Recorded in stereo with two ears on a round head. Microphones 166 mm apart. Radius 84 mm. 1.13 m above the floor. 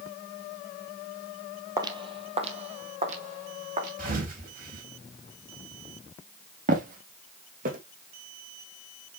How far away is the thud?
About 3.5 m.